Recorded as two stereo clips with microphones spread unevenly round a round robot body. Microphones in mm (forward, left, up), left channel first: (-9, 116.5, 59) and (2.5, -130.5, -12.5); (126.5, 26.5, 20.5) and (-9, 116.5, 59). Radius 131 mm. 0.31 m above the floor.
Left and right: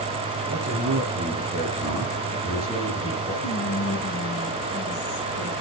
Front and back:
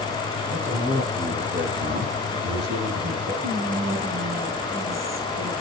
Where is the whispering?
125° left, 6 m.